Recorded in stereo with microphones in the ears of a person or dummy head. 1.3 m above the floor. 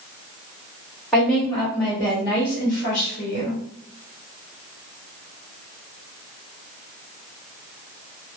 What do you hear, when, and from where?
1.1 s a woman speaking: 5° left (ahead or behind), 1.3 m; by 3.6 s 65° left (ahead or behind), 1.0 m